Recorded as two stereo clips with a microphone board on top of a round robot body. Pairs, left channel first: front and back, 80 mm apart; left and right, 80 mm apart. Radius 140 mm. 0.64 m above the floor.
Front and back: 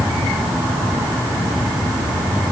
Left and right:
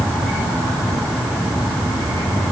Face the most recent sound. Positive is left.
No sound to turn to.